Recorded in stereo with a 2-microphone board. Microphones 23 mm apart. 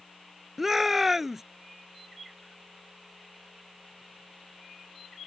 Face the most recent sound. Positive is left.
turn(degrees=-10)  # may be behind; listen again after turning